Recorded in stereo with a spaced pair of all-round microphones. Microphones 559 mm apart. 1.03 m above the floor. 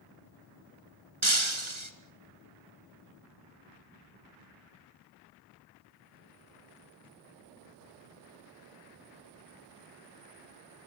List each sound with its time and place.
1.2 s breaking glass: 55° right (ahead or behind), 2 m